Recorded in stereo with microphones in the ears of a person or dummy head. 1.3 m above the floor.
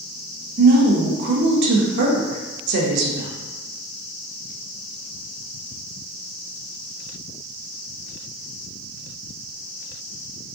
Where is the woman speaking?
55° right (ahead or behind), 0.6 m.